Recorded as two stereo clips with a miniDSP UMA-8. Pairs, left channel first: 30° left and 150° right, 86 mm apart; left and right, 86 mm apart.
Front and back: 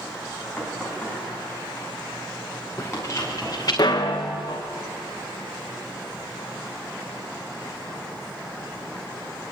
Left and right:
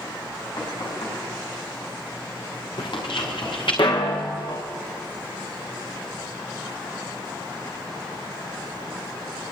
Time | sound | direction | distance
0.6 | knocking | 115° left | 6.5 m
2.8 | footsteps | 90° left | 3.5 m